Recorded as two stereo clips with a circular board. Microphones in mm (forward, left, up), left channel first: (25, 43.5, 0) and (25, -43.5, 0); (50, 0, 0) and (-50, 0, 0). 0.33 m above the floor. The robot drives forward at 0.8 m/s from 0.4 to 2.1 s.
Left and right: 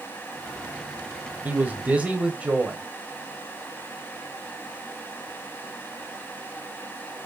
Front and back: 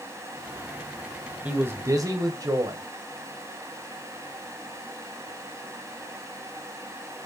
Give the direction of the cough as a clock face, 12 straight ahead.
No cough in this recording.